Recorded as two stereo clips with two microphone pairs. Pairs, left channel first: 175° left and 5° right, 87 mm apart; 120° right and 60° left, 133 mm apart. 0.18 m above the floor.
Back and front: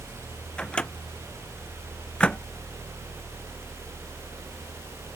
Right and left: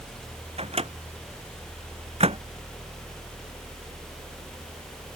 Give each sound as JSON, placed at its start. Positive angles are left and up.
{"t": 0.6, "sound": "a microwave", "azimuth_deg": 100}